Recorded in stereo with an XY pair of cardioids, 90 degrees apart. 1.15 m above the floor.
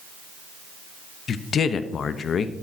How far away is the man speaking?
About 0.8 m.